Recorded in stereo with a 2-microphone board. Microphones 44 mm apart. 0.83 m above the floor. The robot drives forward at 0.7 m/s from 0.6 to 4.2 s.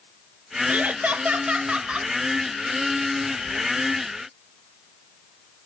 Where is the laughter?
35° right (ahead or behind), 0.9 m; by 2.1 s 20° right (ahead or behind), 1.3 m.